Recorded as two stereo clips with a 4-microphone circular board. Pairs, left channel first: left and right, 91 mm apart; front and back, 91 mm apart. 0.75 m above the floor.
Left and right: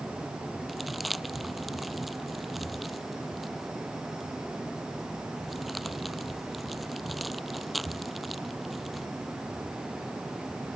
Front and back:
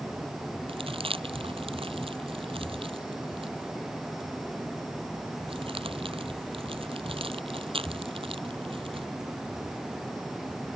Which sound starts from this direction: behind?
Crumpling, at 0.7 s.